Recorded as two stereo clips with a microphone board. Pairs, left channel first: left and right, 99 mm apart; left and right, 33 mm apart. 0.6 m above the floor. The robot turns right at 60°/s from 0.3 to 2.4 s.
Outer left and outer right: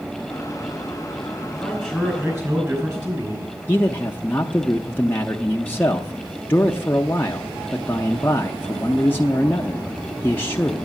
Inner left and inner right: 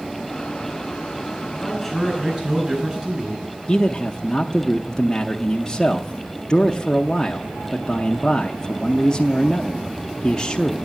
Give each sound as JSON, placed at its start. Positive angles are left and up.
{"t": 1.6, "sound": "a man speaking", "azimuth_deg": 170, "distance_m": 5.0}
{"t": 3.7, "sound": "a man speaking", "side_deg": 20, "distance_m": 0.6}